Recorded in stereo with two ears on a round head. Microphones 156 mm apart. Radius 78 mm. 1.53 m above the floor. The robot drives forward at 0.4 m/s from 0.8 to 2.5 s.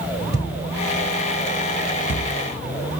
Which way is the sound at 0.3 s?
35° left (ahead or behind).